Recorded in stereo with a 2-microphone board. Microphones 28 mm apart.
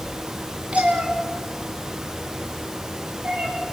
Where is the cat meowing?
55° right (ahead or behind), 3.5 m; by 3.5 s 75° right (ahead or behind), 7 m.